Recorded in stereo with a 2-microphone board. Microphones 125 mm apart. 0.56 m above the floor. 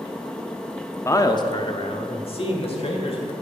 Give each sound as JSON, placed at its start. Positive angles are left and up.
{"t": 1.1, "sound": "a man speaking", "side_deg": 20, "distance_m": 0.7}